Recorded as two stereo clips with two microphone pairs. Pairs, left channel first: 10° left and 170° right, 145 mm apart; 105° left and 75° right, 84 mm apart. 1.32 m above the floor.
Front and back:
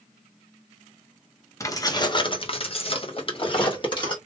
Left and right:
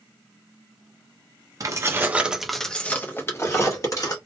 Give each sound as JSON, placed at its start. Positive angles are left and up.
{"t": 1.6, "sound": "keys jangling", "azimuth_deg": -50, "distance_m": 0.6}